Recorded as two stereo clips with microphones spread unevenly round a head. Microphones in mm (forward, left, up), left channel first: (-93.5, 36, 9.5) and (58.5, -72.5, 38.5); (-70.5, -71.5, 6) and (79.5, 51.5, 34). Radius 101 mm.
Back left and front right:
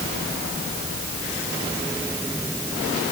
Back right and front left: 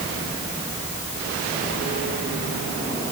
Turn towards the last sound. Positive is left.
No sound to turn to.